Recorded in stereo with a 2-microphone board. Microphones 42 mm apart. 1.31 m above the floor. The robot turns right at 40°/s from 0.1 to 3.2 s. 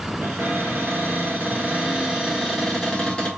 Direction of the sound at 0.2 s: 90° right.